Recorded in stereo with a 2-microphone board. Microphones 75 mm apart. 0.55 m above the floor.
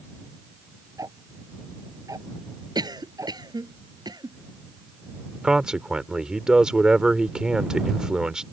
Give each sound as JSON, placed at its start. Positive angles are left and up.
{"t": 1.0, "sound": "ticking", "side_deg": -50}
{"t": 2.8, "sound": "a cough", "side_deg": -65}
{"t": 5.4, "sound": "a man speaking", "side_deg": -10}